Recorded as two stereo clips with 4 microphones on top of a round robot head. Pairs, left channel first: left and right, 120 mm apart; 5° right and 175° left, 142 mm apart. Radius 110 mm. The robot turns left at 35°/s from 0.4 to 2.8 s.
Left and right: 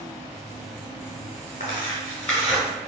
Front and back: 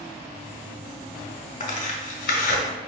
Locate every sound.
1.6 s tearing paper: 30° left, 1.4 m; by 2.6 s 5° right, 1.4 m